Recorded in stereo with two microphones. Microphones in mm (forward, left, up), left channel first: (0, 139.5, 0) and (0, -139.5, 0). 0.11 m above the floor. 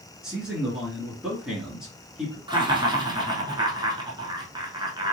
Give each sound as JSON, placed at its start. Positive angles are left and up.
{"t": 0.2, "sound": "a man speaking", "side_deg": 0, "distance_m": 1.8}
{"t": 2.5, "sound": "laughter", "side_deg": -15, "distance_m": 1.2}